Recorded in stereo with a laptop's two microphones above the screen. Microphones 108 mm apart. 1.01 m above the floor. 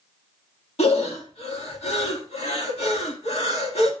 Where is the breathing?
75° left (ahead or behind), 1.9 m.